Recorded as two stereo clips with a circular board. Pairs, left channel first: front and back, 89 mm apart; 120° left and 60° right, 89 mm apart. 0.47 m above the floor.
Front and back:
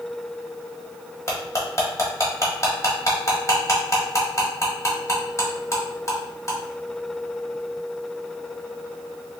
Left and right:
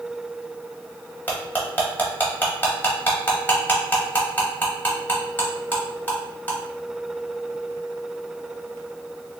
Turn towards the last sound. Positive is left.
turn(degrees=50)